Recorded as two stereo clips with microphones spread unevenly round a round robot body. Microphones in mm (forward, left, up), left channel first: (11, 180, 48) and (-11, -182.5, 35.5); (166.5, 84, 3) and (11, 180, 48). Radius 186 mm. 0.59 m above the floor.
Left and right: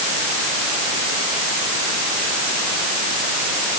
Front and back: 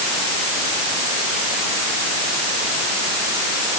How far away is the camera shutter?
I don't hear a camera shutter.